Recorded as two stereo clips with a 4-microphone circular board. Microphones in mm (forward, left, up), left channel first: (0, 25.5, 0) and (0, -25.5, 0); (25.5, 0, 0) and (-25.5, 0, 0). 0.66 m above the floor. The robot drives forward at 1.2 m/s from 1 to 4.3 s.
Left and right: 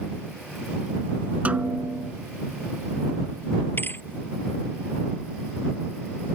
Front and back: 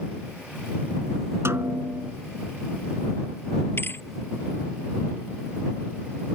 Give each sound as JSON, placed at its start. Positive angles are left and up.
{"t": 1.4, "sound": "a snare drum", "azimuth_deg": -150}
{"t": 3.8, "sound": "a thud", "azimuth_deg": 45}